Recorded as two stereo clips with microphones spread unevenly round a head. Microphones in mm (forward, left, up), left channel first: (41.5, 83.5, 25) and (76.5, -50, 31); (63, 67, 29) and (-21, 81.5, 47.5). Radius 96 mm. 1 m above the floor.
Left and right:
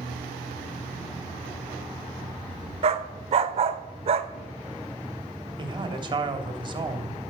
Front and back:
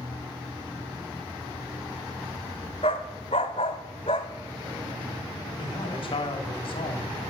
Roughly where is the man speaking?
Ahead.